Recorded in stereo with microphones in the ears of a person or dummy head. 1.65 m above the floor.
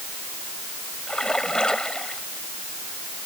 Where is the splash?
5° left (ahead or behind).